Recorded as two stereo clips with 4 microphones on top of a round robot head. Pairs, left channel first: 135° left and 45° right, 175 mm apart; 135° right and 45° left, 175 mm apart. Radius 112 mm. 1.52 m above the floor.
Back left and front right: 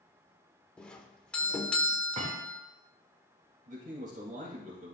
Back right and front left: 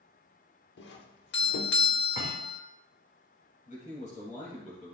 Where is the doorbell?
140° right, 1.1 m.